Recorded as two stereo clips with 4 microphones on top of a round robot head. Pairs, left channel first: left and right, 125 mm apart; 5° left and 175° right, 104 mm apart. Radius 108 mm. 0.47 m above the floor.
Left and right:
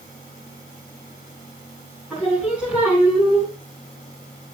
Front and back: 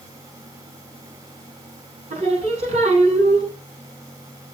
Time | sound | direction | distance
2.1 | singing | 170° right | 5.5 m